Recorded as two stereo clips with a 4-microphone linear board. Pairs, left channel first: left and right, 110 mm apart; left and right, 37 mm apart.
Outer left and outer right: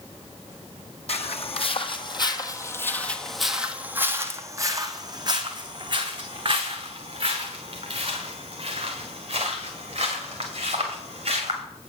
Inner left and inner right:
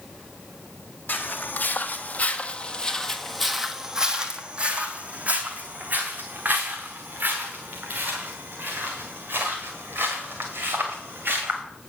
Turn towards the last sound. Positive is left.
turn(degrees=-60)  # may be behind; listen again after turning